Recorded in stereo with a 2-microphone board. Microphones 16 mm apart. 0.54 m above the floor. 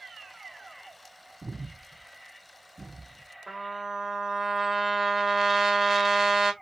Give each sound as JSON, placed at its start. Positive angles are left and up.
{"t": 1.4, "sound": "breathing", "side_deg": 5, "distance_m": 0.7}
{"t": 3.5, "sound": "a trumpet", "side_deg": -20, "distance_m": 1.1}